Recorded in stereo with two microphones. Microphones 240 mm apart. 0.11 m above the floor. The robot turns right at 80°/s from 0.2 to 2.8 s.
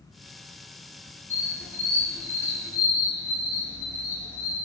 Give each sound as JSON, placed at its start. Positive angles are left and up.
{"t": 1.3, "sound": "a squeak", "azimuth_deg": 10, "distance_m": 1.4}